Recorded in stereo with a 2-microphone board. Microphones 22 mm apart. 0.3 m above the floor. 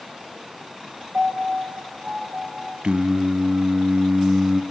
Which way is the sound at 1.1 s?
80° right.